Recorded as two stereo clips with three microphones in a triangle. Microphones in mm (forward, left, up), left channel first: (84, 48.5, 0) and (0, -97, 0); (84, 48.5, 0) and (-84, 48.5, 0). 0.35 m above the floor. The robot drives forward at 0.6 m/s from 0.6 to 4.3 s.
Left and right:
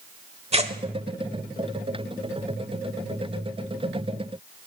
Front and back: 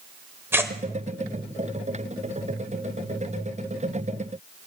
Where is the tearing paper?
115° right, 1.2 m; by 0.7 s 120° right, 1.2 m.